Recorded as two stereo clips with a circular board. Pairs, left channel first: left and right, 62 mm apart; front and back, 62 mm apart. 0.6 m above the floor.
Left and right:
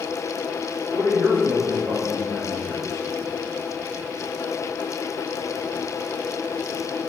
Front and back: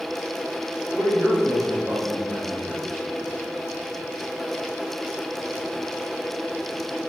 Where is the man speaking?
100° right, 2 m; by 3.0 s 85° right, 3.5 m.